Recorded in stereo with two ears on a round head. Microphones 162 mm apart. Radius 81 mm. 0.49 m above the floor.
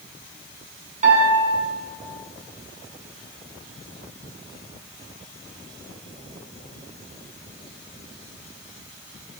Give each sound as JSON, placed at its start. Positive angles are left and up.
{"t": 1.0, "sound": "a piano", "side_deg": -40, "distance_m": 3.5}